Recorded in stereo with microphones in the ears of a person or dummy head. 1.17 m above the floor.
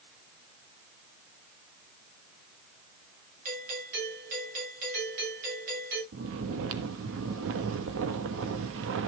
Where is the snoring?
70° right (ahead or behind), 1.2 m.